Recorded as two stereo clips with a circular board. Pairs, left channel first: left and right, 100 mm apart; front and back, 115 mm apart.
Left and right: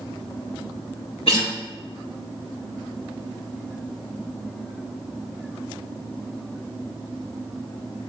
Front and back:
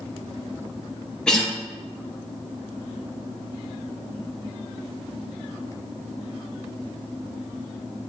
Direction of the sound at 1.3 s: 85° left.